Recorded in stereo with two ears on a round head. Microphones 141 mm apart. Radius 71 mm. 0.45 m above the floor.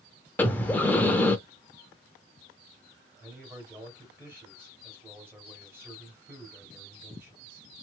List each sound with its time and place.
0.4 s breathing: 10° left (ahead or behind), 0.6 m
3.2 s a man speaking: 15° right (ahead or behind), 2 m